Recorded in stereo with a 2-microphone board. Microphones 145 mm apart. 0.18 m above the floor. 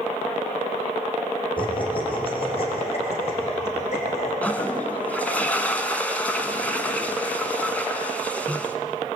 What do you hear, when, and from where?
1.6 s laughter: 35° left (ahead or behind), 6 m; by 4.3 s 50° left (ahead or behind), 9 m
4.4 s a toilet flushing: 10° left (ahead or behind), 1.7 m